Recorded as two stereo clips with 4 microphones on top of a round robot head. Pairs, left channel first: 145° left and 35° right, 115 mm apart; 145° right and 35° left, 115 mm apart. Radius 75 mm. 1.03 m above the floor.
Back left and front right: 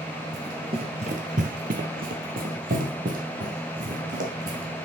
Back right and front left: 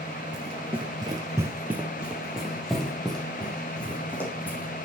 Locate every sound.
0.3 s running footsteps: 20° left, 1.4 m; by 4.7 s 65° right, 4 m